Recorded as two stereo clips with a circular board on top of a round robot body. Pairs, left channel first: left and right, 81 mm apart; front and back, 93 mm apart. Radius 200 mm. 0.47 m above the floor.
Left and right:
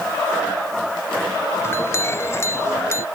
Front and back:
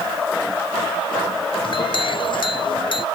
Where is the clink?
30° left.